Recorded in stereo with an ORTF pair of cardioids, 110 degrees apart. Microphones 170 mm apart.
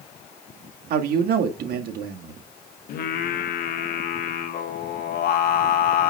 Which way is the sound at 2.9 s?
65° left.